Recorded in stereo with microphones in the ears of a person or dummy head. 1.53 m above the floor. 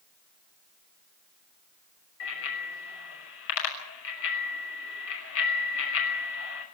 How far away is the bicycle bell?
About 6 m.